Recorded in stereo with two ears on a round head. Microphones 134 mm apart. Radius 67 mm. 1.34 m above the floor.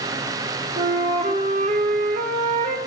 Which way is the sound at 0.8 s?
45° right (ahead or behind).